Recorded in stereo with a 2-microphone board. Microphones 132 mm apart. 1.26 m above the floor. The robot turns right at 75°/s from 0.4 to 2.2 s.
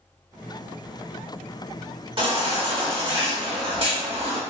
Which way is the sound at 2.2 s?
40° right (ahead or behind).